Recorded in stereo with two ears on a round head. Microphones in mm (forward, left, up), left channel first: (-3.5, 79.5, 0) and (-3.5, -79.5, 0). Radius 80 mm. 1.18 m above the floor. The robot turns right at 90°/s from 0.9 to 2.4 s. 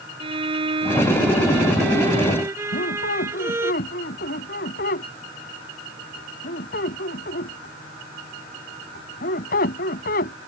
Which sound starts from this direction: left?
A squeak, at 2.7 s.